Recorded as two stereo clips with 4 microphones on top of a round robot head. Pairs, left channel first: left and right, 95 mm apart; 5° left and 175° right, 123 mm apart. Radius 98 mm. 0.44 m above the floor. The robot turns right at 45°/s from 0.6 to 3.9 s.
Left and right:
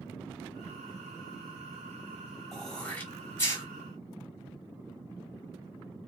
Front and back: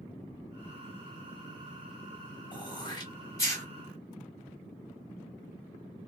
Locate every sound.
2.5 s throat clearing: 5° left, 1.5 m; by 3.6 s 55° left, 1.5 m